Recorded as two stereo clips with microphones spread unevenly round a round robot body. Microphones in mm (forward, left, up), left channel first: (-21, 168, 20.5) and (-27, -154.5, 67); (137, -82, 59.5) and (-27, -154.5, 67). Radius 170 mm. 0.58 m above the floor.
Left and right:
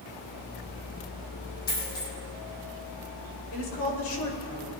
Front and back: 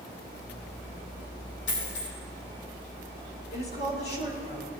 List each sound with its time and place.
1.7 s a dropped coin: 25° left, 4.5 m
3.5 s a woman speaking: 45° left, 3 m